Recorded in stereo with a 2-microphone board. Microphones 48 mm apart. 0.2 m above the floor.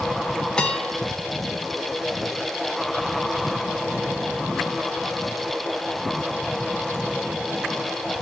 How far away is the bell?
About 1.4 m.